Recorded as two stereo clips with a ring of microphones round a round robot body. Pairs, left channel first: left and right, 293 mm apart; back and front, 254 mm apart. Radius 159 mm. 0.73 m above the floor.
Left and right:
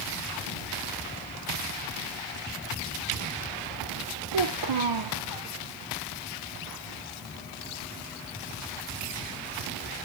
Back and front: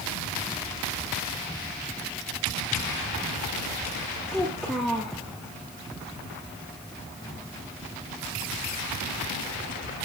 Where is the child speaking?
90° right, 1.4 m.